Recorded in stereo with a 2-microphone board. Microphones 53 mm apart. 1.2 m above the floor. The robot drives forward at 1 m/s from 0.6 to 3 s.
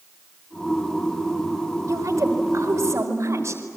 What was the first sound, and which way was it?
A woman speaking, 75° right (ahead or behind).